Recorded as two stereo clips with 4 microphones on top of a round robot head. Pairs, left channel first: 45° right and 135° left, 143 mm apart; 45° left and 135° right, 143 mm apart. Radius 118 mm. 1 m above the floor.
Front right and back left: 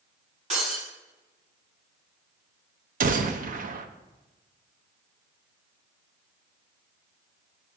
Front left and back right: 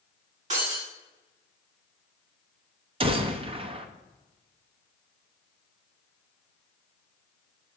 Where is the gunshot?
170° left, 0.9 m.